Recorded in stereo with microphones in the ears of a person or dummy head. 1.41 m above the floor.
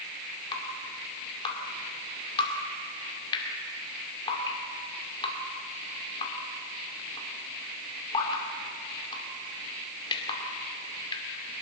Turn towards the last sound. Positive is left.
turn(degrees=25)  # may be behind; listen again after turning